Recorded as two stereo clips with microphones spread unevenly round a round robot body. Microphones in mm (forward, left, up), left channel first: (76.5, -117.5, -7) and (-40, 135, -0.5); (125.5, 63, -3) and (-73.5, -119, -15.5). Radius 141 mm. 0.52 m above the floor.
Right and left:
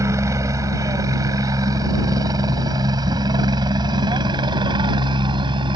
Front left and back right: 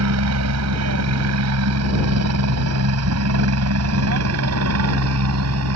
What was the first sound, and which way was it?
A helicopter, 165° right.